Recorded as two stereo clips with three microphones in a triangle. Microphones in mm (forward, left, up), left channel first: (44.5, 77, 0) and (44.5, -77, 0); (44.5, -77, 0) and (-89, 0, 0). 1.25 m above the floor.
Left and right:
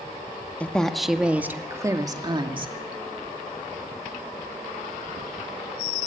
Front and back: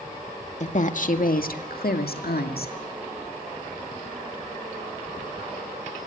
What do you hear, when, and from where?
0.6 s a woman speaking: 10° left, 1.8 m; by 2.7 s 35° right, 2.5 m